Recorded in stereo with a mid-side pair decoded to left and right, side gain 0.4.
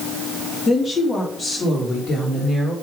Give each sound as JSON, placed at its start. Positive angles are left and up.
{"t": 0.7, "sound": "a woman speaking", "azimuth_deg": 30, "distance_m": 3.0}